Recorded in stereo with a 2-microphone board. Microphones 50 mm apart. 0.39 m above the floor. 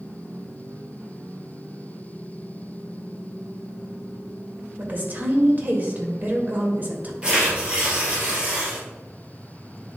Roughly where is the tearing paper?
Centre.